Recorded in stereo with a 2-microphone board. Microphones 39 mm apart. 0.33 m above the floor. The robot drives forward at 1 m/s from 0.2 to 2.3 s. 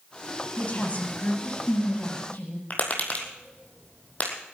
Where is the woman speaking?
35° left (ahead or behind), 2.5 m; by 2.6 s 50° left (ahead or behind), 1.6 m.